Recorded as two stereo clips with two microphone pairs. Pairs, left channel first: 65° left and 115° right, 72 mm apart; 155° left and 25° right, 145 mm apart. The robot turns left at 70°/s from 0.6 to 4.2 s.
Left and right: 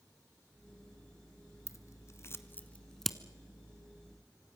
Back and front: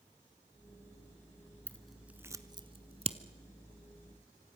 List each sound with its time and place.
1.7 s scissors: 80° left, 1.2 m; by 3.2 s 25° right, 1.2 m